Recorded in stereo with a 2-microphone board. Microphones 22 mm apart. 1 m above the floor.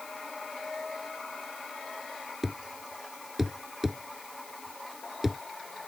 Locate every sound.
2.4 s a thud: 10° right (ahead or behind)